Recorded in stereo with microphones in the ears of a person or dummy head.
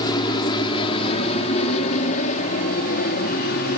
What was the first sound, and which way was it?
An aircraft, 25° left (ahead or behind).